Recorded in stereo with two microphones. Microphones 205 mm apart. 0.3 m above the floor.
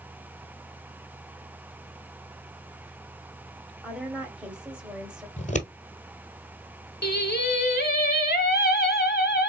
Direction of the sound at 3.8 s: 5° right (ahead or behind).